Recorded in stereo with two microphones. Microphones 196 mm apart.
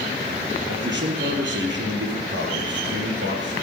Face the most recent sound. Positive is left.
turn(degrees=-70)  # may be behind; listen again after turning